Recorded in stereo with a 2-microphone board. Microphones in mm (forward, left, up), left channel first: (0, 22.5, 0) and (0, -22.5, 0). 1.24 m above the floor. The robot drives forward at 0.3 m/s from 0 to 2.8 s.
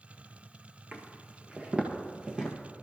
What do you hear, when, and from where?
0.9 s footsteps: 35° right (ahead or behind), 1.4 m; by 2.6 s 15° right (ahead or behind), 1.8 m